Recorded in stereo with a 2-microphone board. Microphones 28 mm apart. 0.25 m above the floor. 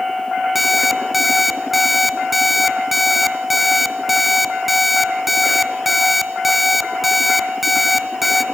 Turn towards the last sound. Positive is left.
turn(degrees=-5)  # may be behind; listen again after turning